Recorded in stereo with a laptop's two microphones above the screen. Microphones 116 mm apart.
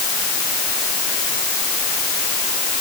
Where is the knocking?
No knocking in this recording.